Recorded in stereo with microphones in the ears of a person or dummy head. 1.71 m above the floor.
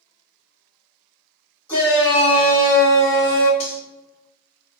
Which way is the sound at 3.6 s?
25° left (ahead or behind).